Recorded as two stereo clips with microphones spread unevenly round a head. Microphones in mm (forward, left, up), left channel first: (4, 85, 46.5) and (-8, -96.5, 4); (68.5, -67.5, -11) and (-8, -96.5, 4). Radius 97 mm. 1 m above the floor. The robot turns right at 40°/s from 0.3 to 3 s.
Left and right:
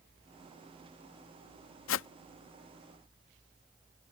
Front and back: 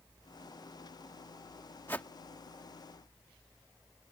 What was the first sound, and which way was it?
A whoosh, 100° left.